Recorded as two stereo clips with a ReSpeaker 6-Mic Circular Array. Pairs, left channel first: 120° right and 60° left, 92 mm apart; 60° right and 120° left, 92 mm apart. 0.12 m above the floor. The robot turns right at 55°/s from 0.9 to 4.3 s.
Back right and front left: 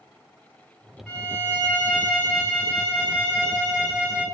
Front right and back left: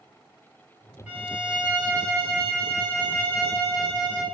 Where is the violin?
170° left, 1.6 m; by 4.2 s 15° right, 1.6 m.